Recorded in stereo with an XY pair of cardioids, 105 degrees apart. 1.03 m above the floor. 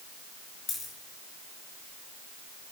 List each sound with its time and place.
0.7 s a dropped coin: 55° left, 4 m